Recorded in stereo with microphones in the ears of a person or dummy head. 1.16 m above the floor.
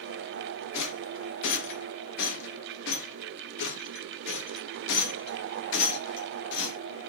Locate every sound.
0.7 s a rattle: 70° left (ahead or behind), 1.0 m